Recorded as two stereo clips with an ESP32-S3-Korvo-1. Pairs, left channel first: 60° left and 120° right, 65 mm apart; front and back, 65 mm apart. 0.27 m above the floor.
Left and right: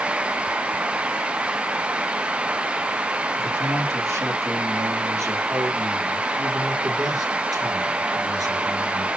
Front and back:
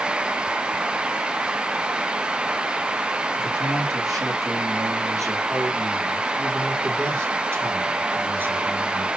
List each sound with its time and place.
3.4 s a man speaking: 165° right, 5.5 m; by 9.1 s 120° right, 4.5 m